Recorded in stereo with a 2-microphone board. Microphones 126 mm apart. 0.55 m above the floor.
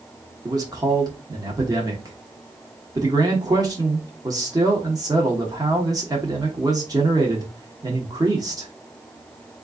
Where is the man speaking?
30° right (ahead or behind), 1.1 m.